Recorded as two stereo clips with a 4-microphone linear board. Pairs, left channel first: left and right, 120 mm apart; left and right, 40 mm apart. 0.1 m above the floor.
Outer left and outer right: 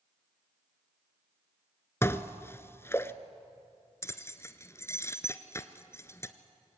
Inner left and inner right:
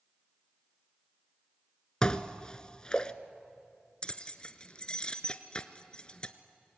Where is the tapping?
I don't hear tapping.